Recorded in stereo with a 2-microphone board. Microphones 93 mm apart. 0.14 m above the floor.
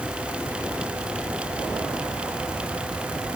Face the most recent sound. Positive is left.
No sound to turn to.